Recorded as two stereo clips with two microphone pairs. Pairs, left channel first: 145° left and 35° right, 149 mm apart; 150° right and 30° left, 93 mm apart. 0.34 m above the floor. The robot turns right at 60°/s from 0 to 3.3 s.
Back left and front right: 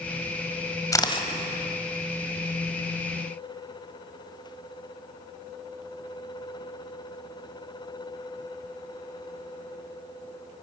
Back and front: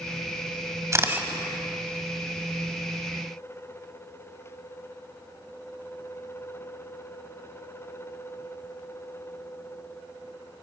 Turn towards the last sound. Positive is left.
turn(degrees=-135)